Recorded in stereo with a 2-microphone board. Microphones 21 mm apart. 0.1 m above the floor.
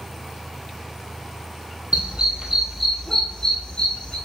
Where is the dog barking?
55° right (ahead or behind), 1.1 m; by 4.2 s 45° left (ahead or behind), 1.9 m.